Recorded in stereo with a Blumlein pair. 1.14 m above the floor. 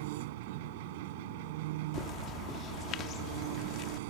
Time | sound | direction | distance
0.0 | an engine running | 50° right | ?
1.9 | a bird | 30° left | ?